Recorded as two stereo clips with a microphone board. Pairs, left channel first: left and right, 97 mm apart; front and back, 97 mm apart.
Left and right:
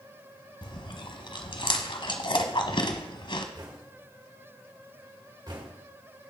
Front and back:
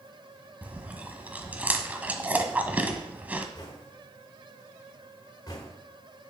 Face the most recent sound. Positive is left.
turn(degrees=-45)